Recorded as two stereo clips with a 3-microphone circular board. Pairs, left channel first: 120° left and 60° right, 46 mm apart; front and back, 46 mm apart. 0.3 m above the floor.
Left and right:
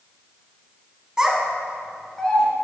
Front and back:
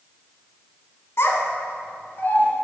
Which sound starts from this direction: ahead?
A child speaking, at 1.2 s.